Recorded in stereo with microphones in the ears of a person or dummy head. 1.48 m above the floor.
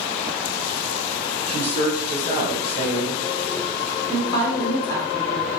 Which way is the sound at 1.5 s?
60° left (ahead or behind).